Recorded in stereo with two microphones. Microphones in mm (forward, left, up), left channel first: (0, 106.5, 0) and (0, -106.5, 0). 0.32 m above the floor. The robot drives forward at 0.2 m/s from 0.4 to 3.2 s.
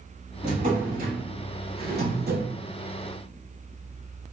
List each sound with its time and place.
0.4 s a drawer: 40° right (ahead or behind), 0.9 m; by 2.5 s 60° right (ahead or behind), 0.6 m